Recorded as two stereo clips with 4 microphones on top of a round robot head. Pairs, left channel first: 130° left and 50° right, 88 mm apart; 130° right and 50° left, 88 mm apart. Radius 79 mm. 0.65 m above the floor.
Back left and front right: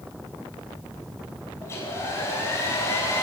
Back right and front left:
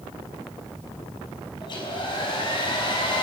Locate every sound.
1.6 s a hair dryer: 165° right, 5.5 m